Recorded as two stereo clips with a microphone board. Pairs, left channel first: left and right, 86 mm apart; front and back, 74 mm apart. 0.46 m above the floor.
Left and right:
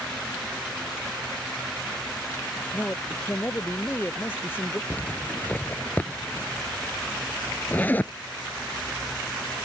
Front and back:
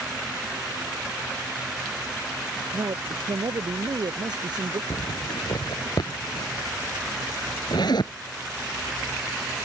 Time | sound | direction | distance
2.7 | a man speaking | 155° left | ?
4.9 | a zipper | 20° left | ?